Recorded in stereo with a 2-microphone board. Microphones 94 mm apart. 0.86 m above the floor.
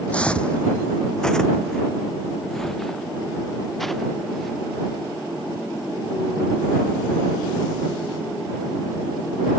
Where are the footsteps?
15° left (ahead or behind); by 4.6 s centre (ahead or behind).